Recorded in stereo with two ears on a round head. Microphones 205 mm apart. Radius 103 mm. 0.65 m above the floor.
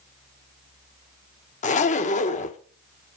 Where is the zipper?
30° left (ahead or behind), 0.8 m.